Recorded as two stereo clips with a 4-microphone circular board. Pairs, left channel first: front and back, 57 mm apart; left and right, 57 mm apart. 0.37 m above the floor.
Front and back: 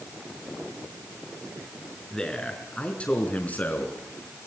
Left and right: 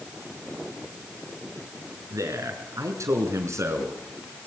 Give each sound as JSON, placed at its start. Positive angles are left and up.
{"t": 2.1, "sound": "a man speaking", "azimuth_deg": -80, "distance_m": 5.0}